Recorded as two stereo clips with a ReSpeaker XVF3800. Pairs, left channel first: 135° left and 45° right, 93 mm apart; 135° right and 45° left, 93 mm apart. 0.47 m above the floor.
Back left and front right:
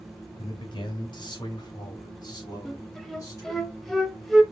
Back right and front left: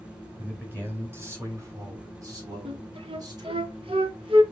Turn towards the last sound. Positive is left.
turn(degrees=45)